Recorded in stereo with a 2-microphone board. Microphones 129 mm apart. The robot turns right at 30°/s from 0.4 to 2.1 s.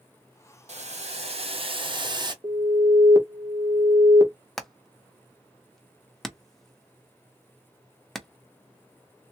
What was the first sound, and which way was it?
Boiling, 85° right.